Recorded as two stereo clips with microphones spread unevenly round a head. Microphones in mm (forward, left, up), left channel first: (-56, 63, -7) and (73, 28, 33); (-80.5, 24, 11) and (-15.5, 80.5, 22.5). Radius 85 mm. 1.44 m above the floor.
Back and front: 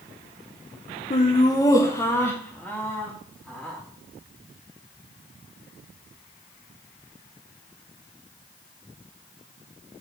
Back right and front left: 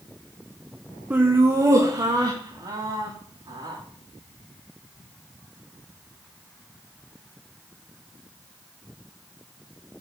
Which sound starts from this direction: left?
Laughter, at 1.1 s.